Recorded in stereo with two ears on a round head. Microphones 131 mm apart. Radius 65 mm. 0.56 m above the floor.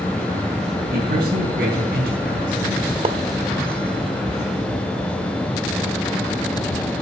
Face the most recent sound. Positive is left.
turn(degrees=-35)  # may be behind; listen again after turning